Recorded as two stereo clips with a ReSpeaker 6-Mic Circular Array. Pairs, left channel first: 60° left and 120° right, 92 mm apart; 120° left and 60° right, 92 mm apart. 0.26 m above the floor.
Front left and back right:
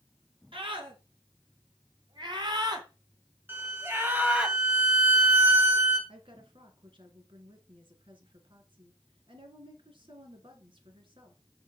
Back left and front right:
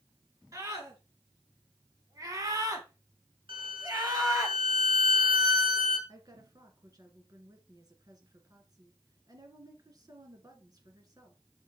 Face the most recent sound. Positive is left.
turn(degrees=-105)